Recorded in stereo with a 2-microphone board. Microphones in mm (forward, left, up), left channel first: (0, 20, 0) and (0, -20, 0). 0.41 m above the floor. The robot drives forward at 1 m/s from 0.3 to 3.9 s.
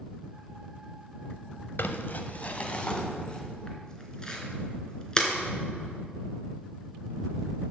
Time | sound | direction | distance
1.8 | crumpling | 60° left (ahead or behind) | 0.9 m